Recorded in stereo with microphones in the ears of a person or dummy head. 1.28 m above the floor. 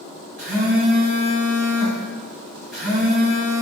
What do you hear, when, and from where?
0.4 s a phone buzzing: 5° right (ahead or behind), 1.7 m